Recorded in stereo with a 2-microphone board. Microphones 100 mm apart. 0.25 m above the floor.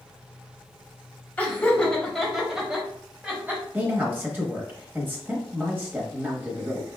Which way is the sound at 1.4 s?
15° left (ahead or behind).